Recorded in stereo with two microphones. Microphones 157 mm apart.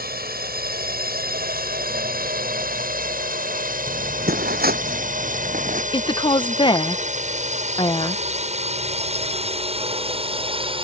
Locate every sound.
0.0 s a drone: 70° right (ahead or behind); by 10.8 s 35° right (ahead or behind)
3.9 s footsteps: 75° right (ahead or behind); by 5.8 s 55° right (ahead or behind)
5.9 s a woman speaking: 30° left (ahead or behind)